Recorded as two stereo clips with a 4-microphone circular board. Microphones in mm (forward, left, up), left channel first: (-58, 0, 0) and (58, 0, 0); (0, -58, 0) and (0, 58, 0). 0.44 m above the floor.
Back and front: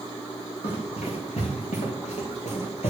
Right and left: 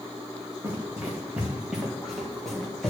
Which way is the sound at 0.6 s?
160° left.